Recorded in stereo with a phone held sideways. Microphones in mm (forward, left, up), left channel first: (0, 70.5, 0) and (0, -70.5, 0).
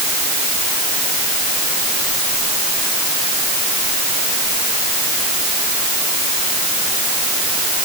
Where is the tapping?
I don't hear tapping.